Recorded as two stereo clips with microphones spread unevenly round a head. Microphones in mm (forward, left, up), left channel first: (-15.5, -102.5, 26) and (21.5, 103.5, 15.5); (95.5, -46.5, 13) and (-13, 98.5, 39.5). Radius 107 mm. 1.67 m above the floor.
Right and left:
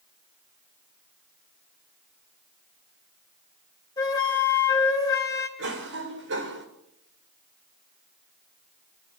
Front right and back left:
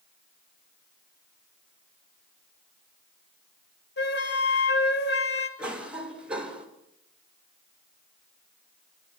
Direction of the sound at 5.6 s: 45° left.